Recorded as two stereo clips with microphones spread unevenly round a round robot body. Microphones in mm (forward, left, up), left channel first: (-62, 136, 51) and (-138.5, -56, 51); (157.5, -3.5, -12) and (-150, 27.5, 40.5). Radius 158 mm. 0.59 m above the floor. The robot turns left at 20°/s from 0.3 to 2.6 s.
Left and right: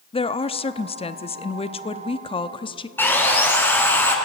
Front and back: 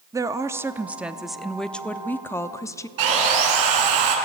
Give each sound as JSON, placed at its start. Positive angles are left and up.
{"t": 0.1, "sound": "a woman speaking", "azimuth_deg": 85, "distance_m": 0.8}
{"t": 3.0, "sound": "sawing", "azimuth_deg": 150, "distance_m": 5.0}